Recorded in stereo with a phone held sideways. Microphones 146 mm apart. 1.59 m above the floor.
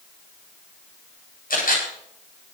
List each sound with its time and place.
1.5 s a camera shutter: 80° left, 9.5 m